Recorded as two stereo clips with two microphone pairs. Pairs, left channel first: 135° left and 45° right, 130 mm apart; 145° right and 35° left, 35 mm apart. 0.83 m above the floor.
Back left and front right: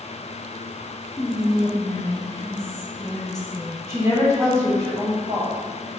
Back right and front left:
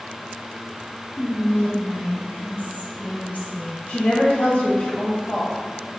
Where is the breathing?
No breathing in this recording.